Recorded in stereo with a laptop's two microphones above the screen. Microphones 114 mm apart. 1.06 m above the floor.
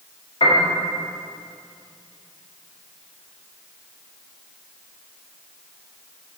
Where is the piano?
60° left (ahead or behind), 1.8 m.